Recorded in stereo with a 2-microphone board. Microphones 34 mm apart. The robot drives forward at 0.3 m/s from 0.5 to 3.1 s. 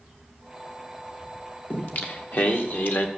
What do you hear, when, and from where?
1.7 s singing: 55° left (ahead or behind), 1.5 m; by 3.1 s 70° left (ahead or behind), 1.3 m